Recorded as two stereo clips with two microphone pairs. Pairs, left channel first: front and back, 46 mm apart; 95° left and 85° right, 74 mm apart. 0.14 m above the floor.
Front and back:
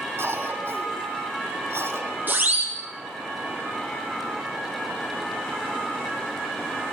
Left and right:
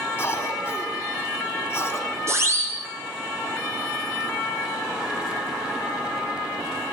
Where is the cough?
155° left, 5.5 m.